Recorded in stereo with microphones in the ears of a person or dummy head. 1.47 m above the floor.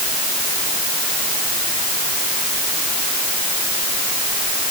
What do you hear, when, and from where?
Only background noise.